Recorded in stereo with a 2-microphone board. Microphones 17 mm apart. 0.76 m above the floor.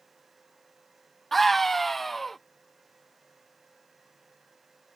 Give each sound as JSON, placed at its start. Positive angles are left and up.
{"t": 1.3, "sound": "a scream", "side_deg": 10}